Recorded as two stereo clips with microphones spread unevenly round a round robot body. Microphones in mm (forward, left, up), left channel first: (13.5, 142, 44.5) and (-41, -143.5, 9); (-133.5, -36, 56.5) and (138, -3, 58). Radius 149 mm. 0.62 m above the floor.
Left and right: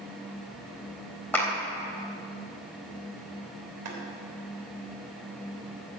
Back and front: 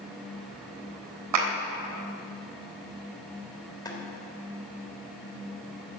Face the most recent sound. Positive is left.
turn(degrees=-100)